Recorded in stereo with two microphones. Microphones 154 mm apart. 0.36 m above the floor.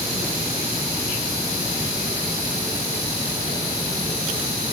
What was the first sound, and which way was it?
Only background noise.